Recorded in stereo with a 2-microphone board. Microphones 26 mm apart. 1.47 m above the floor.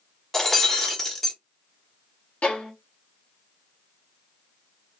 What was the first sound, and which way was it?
Breaking glass, 20° left (ahead or behind).